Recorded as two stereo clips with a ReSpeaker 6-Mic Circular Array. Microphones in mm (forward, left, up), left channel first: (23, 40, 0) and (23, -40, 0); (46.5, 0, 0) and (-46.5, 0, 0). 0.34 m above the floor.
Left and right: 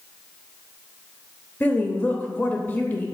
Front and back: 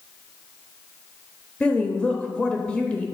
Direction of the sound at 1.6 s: 65° left.